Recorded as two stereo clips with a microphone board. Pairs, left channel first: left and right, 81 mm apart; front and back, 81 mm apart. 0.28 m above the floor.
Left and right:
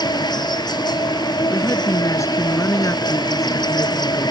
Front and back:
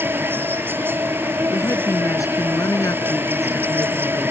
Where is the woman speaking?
40° left.